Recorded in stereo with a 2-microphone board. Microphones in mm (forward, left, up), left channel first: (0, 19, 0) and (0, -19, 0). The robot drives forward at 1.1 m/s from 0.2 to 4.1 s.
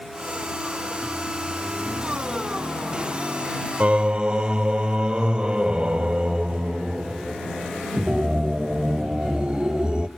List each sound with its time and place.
3.8 s singing: 40° right (ahead or behind), 0.5 m; by 10.1 s 25° right (ahead or behind), 0.7 m